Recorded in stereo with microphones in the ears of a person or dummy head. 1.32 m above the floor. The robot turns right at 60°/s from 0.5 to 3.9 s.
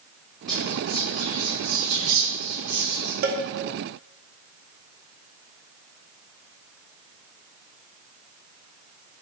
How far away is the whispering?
About 1.5 m.